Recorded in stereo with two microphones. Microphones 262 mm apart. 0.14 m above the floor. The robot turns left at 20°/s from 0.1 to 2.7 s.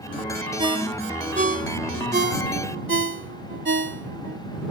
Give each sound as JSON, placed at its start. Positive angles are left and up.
{"t": 0.6, "sound": "a ringtone", "side_deg": -20}